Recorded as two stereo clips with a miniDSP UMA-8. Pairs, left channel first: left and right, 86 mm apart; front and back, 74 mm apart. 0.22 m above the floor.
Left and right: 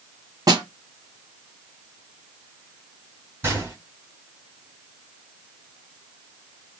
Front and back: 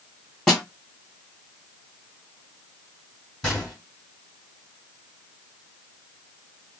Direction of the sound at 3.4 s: 70° right.